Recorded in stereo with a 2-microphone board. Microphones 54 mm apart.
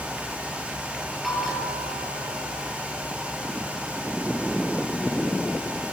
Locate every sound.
1.2 s a bell: centre (ahead or behind), 6.5 m